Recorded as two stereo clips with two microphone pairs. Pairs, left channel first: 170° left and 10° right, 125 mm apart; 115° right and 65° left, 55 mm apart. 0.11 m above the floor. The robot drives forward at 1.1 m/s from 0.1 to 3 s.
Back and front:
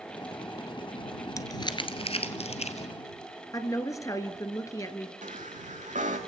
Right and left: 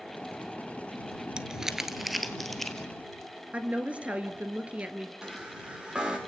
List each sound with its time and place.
1.4 s crumpling: 125° left, 1.3 m; by 2.9 s 165° left, 2.5 m
3.5 s a woman speaking: 120° left, 1.7 m
5.2 s a chime: 10° right, 4 m